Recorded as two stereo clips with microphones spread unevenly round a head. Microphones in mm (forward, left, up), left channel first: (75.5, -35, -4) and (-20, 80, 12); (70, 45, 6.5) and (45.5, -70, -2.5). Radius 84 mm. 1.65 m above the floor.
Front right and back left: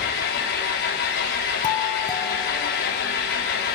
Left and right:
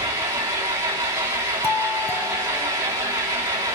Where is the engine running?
45° right, 3 m.